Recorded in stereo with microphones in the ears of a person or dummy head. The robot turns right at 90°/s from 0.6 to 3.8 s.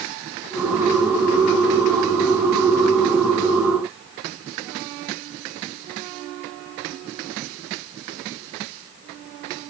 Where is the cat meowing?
No cat meowing in this recording.